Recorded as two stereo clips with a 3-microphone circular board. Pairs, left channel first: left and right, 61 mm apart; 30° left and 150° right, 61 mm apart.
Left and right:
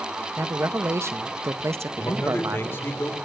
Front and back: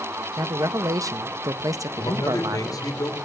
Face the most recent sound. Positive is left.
turn(degrees=45)